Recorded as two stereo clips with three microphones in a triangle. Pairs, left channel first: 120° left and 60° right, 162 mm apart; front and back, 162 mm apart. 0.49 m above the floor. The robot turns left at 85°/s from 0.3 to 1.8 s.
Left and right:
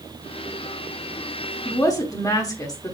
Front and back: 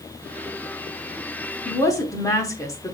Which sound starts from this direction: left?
A woman speaking, at 1.6 s.